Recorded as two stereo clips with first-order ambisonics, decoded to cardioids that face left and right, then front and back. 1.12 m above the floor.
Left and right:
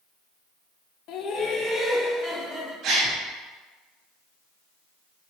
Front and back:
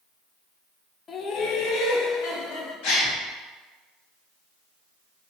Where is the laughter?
65° left, 0.8 m; by 2.7 s 15° right, 1.7 m.